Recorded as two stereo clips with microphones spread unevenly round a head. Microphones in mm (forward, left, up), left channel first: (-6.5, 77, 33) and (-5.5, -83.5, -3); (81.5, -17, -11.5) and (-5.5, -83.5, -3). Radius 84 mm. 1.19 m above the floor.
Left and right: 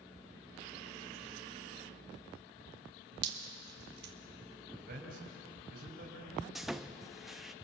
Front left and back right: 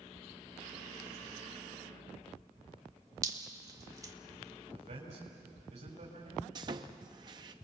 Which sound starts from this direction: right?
Dripping, at 3.2 s.